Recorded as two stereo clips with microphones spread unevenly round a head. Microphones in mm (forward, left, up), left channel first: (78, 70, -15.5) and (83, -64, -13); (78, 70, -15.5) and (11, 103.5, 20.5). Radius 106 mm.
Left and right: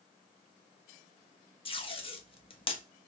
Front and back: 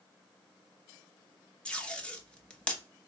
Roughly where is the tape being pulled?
Ahead left.